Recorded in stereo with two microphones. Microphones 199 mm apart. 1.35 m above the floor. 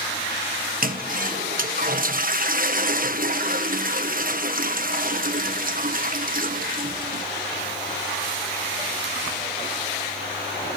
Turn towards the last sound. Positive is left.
turn(degrees=-45)  # may be behind; listen again after turning